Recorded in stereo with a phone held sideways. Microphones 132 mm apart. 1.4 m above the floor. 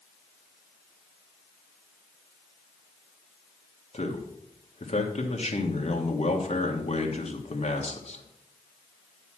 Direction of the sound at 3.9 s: 50° left (ahead or behind).